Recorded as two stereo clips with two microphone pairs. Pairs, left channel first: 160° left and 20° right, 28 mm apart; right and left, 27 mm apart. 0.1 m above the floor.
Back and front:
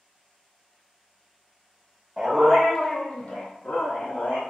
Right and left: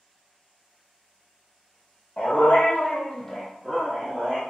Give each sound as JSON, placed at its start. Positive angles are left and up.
{"t": 2.2, "sound": "a dog barking", "azimuth_deg": -100, "distance_m": 1.1}